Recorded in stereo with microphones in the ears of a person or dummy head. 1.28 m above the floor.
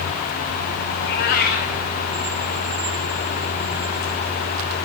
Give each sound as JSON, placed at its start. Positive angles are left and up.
{"t": 1.0, "sound": "a cat meowing", "side_deg": 40, "distance_m": 0.8}